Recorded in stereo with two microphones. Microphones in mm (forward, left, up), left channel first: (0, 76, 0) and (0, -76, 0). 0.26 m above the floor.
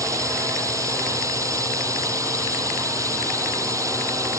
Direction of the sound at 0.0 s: 20° right (ahead or behind).